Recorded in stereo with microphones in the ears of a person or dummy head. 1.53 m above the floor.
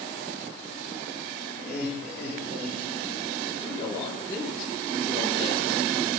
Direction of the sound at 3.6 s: 30° left (ahead or behind).